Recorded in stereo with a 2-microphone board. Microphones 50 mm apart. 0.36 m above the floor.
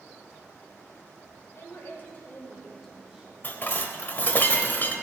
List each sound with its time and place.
1.6 s a woman speaking: 55° left (ahead or behind), 2.5 m; by 3.3 s 15° right (ahead or behind), 2 m
3.4 s dishes clattering: 40° left (ahead or behind), 0.8 m